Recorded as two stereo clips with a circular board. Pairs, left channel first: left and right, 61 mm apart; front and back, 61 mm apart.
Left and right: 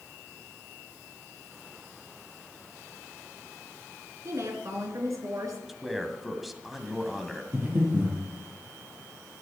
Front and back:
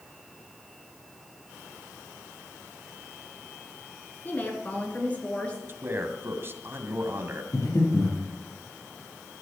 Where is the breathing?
35° right, 6 m.